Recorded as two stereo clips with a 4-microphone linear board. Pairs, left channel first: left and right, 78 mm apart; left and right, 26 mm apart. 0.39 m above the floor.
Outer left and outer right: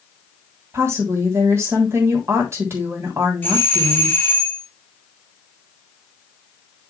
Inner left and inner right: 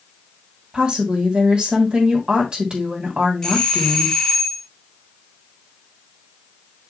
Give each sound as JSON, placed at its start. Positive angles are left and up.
{"t": 0.7, "sound": "a woman speaking", "side_deg": -35, "distance_m": 3.0}
{"t": 3.4, "sound": "a doorbell", "side_deg": 25, "distance_m": 2.0}